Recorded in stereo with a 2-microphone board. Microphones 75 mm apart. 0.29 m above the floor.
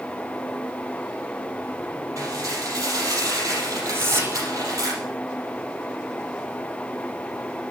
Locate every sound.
2.2 s dishes clattering: 45° right (ahead or behind), 5 m
3.9 s whispering: 35° right (ahead or behind), 1.1 m